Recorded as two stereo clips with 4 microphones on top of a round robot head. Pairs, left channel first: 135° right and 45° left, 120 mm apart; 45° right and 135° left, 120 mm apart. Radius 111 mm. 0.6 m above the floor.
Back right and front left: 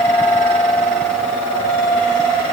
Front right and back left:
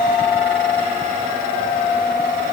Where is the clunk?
I don't hear a clunk.